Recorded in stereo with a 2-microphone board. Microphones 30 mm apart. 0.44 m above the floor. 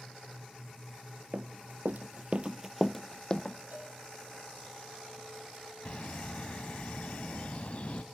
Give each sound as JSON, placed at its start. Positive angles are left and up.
{"t": 1.3, "sound": "running footsteps", "side_deg": -70, "distance_m": 1.4}
{"t": 3.7, "sound": "a cowbell", "side_deg": -80, "distance_m": 7.5}
{"t": 5.8, "sound": "a bird", "side_deg": 45, "distance_m": 0.6}